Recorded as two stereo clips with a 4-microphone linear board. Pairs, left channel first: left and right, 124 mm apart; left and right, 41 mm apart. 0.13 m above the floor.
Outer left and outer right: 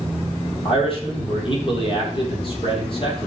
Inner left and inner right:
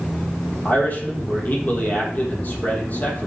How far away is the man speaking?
About 3.5 m.